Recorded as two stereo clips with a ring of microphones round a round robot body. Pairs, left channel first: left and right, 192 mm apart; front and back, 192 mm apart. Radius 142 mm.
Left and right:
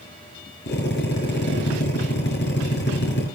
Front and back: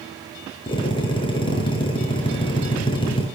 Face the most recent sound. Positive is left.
turn(degrees=65)